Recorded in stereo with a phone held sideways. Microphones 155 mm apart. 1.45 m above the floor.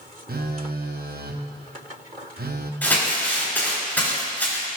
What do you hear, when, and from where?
0.3 s a phone buzzing: 80° right, 0.7 m
2.8 s crumpling: 10° left (ahead or behind), 4.5 m